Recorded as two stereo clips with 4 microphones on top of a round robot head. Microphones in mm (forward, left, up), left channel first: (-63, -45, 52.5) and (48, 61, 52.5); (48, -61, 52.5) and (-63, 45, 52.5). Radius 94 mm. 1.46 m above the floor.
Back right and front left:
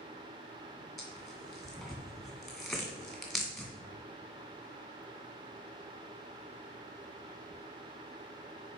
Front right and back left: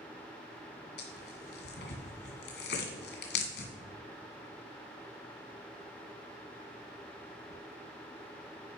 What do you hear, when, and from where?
1.0 s tearing paper: 50° right, 1.9 m